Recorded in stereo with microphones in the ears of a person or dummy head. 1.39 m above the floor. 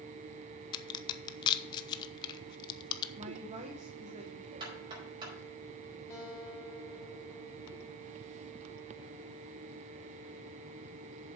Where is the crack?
25° left (ahead or behind), 0.9 m.